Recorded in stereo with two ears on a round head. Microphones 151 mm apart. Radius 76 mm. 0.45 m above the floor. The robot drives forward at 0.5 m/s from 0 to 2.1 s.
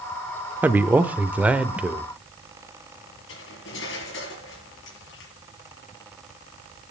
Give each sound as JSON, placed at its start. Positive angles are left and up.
{"t": 0.6, "sound": "a man speaking", "side_deg": -10, "distance_m": 0.8}
{"t": 3.3, "sound": "cutlery clinking", "side_deg": 80, "distance_m": 5.0}